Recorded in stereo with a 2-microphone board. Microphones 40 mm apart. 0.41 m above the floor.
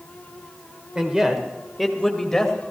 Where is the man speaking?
20° right (ahead or behind), 1.8 m; by 2.5 s 10° left (ahead or behind), 2.5 m.